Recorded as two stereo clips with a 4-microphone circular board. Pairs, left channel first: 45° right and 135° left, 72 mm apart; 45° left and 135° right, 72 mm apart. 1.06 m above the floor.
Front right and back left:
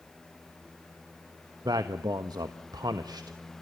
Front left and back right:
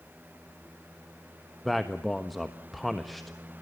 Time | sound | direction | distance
1.6 | a man speaking | 135° left | 1.2 m